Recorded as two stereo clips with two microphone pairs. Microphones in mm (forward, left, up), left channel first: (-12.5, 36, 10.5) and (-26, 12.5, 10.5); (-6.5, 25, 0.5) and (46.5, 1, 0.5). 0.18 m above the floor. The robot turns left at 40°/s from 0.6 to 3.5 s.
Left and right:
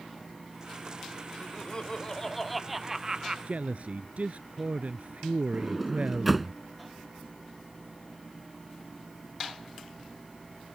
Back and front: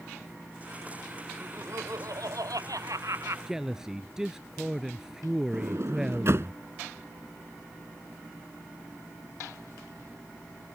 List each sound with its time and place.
1.4 s laughter: 20° left; by 3.4 s 60° right
3.5 s a man speaking: 100° right; by 6.5 s 105° right
5.5 s a sliding door: 35° right